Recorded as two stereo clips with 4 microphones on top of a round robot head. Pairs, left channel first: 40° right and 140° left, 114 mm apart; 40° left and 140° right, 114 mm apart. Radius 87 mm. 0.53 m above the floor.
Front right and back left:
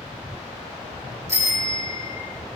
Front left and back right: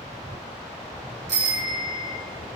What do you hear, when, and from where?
1.3 s a bicycle bell: 155° right, 7 m